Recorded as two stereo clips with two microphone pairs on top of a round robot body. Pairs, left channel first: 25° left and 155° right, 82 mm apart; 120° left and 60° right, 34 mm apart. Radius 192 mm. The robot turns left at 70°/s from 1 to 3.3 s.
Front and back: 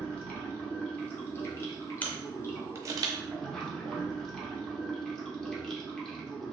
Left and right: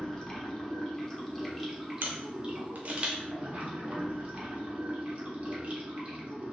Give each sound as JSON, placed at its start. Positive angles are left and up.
{"t": 0.0, "sound": "running water", "azimuth_deg": 100, "distance_m": 1.1}
{"t": 2.0, "sound": "a camera shutter", "azimuth_deg": -45, "distance_m": 0.5}